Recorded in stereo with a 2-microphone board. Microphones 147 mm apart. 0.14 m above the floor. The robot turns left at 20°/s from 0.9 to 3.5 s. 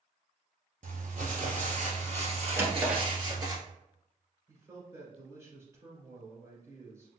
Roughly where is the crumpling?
Right.